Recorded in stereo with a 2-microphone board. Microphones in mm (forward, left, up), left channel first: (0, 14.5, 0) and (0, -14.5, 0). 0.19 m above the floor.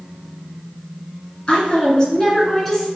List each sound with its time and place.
1.5 s a woman speaking: 35° left (ahead or behind), 1.6 m; by 2.9 s 10° left (ahead or behind), 1.9 m